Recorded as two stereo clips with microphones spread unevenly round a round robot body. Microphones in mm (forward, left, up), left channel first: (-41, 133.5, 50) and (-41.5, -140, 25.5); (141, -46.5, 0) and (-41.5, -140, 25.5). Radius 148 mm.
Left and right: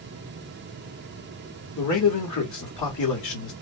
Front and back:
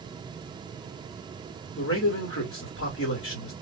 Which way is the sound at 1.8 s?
60° left.